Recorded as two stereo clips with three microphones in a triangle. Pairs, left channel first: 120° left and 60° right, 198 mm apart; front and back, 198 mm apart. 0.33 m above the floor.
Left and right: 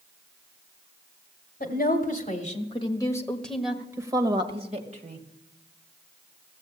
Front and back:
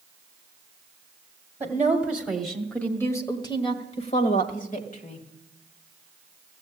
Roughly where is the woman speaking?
Left.